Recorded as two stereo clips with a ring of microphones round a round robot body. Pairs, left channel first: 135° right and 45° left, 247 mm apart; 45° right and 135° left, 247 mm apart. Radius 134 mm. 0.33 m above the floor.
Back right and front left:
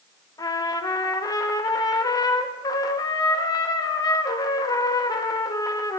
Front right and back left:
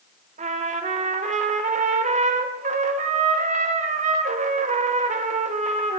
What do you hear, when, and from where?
0.4 s a trumpet: 165° left, 0.7 m